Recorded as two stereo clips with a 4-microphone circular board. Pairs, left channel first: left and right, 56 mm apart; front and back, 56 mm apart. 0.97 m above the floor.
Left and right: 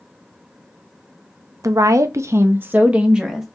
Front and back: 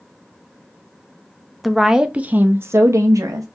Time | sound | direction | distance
1.6 | a woman speaking | 90° right | 0.8 m